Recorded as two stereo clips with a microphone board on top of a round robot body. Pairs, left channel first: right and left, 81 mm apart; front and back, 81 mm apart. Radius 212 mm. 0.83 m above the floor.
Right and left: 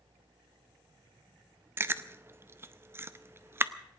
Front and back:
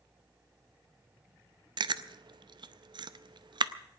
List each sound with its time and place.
1.8 s chewing: 150° left, 0.7 m